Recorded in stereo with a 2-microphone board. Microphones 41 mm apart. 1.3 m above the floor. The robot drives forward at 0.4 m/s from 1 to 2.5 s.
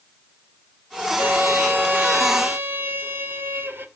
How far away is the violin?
About 2 m.